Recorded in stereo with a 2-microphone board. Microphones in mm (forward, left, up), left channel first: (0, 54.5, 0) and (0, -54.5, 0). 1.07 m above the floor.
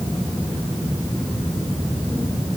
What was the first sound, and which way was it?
Only background noise.